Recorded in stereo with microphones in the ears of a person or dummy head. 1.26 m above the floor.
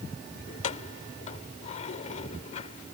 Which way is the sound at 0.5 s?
35° left (ahead or behind).